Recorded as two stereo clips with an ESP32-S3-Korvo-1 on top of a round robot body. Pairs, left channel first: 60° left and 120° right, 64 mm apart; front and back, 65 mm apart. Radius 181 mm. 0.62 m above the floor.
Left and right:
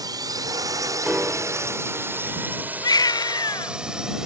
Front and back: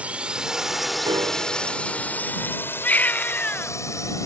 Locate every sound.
0.0 s a drone: 110° right; by 4.3 s 40° right
1.0 s a piano: 160° left
2.8 s a baby crying: 65° left